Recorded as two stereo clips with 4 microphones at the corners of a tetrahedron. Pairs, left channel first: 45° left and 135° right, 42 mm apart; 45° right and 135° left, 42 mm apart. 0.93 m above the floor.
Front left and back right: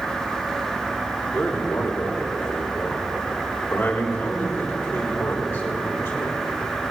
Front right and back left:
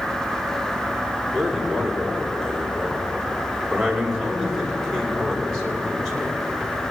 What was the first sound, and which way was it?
A man speaking, 40° left.